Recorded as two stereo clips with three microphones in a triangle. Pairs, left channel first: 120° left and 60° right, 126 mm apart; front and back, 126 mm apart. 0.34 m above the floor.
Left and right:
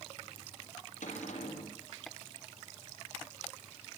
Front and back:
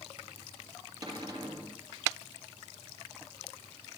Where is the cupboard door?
120° left, 5.5 m.